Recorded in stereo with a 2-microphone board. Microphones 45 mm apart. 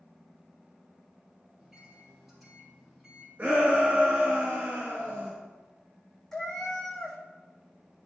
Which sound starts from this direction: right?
A shout, at 3.4 s.